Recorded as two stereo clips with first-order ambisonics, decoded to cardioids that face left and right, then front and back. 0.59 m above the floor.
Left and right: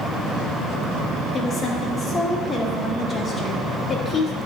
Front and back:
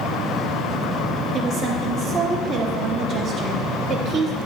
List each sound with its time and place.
1.3 s a woman speaking: 135° left, 0.7 m